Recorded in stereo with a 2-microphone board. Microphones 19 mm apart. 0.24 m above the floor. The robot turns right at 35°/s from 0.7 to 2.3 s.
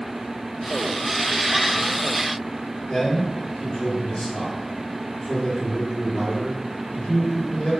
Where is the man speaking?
65° left (ahead or behind), 3 m.